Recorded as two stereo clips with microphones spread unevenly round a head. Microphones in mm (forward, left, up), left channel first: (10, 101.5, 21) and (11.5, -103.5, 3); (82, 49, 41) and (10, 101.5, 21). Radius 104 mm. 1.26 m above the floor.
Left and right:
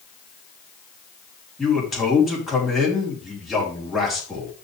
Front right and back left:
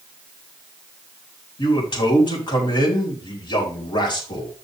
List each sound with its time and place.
1.6 s a man speaking: straight ahead, 3 m